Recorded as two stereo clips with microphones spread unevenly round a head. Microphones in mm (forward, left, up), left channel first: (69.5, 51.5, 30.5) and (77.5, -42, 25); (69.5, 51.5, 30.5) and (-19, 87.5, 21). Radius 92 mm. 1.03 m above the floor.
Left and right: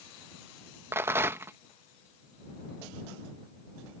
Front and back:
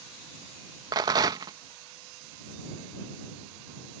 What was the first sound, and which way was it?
A rattle, 155° right.